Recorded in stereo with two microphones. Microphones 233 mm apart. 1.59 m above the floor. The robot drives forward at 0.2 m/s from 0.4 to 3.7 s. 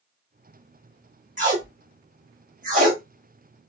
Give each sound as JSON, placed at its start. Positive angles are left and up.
{"t": 1.4, "sound": "tape being pulled", "side_deg": -35, "distance_m": 1.1}